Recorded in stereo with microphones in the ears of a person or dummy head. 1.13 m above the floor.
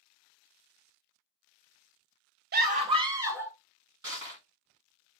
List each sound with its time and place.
2.5 s a scream: 45° right (ahead or behind), 0.5 m; by 3.5 s 10° right (ahead or behind), 1.0 m
4.0 s crushing: 15° right (ahead or behind), 1.9 m